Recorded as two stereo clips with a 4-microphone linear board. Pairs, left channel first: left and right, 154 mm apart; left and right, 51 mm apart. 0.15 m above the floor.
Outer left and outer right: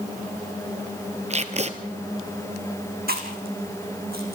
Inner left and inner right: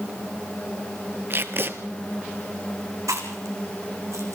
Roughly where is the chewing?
Right.